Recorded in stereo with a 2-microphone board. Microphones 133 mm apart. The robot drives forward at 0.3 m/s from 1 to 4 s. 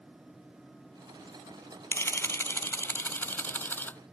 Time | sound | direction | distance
1.9 | a camera shutter | 20° left (ahead or behind) | ?